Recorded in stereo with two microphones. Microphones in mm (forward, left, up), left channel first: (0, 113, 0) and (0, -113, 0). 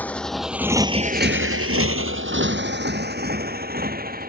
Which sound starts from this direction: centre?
A motorcycle, at 0.0 s.